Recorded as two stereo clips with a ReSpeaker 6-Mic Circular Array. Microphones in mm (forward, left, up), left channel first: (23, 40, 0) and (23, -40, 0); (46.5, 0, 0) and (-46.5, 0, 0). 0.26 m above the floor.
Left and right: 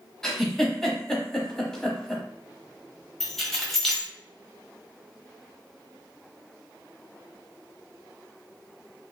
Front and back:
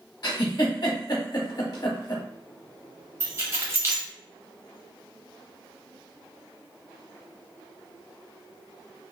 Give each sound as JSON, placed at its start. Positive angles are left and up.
{"t": 0.2, "sound": "a giggle", "azimuth_deg": 10, "distance_m": 0.8}
{"t": 3.2, "sound": "keys jangling", "azimuth_deg": 170, "distance_m": 0.9}